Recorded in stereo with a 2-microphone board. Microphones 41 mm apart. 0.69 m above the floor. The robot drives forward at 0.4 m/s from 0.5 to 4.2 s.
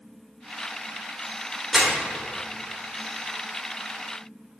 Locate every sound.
1.7 s crumpling: 10° right (ahead or behind), 1.6 m